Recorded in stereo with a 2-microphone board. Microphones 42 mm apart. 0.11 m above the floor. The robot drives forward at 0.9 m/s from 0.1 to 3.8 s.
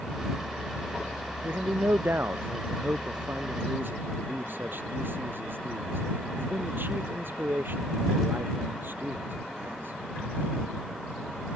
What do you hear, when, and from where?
1.4 s a man speaking: 70° right (ahead or behind); by 10.0 s 60° right (ahead or behind)